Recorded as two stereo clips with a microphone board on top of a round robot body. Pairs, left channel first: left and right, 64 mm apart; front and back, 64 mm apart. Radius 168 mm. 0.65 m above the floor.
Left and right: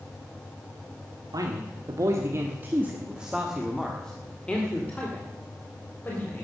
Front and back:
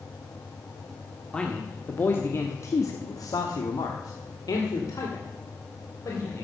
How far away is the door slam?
I don't hear a door slam.